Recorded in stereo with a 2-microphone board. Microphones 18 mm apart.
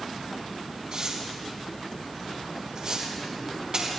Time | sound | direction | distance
0.9 | tearing paper | 50° right (ahead or behind) | 4.5 m